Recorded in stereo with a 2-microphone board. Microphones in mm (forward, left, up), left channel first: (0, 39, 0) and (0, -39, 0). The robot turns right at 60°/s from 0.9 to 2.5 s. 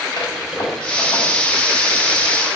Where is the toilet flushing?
80° left, 3 m; by 1.2 s 75° left (ahead or behind), 3 m.